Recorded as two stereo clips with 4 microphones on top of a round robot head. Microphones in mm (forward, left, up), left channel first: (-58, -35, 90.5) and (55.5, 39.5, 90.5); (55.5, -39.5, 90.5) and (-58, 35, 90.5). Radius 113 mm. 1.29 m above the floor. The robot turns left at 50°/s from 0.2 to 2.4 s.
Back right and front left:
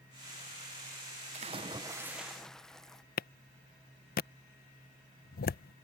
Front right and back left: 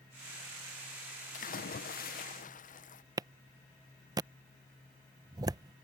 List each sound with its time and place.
1.3 s a splash: 5° right; by 3.0 s 60° right
3.2 s a clap: 150° right